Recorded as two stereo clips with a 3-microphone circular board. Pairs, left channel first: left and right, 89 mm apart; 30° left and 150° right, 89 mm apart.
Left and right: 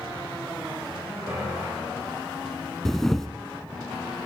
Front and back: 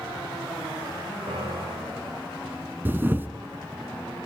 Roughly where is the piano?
Behind right.